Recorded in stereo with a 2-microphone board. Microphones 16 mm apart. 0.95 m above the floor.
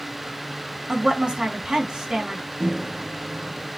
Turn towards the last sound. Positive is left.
turn(degrees=-85)